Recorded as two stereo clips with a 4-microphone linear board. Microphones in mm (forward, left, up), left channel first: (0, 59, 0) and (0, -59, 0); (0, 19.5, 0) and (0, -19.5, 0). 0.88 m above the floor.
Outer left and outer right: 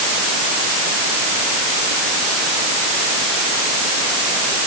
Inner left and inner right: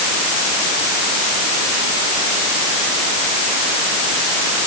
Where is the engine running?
No engine running in this recording.